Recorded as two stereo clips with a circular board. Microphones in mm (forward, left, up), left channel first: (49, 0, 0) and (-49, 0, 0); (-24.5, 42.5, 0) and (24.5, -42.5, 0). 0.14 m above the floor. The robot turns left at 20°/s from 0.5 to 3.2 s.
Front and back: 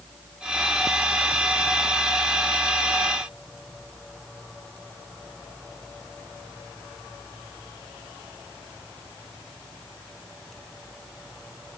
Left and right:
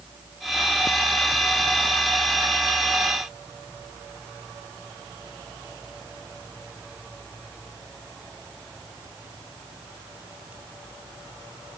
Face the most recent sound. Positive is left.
No sound to turn to.